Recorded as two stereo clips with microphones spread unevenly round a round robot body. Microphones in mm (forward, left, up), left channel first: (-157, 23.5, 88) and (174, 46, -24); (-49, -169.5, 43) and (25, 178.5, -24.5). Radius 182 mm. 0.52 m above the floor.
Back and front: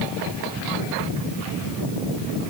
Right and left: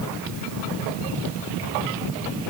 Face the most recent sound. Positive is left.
No sound to turn to.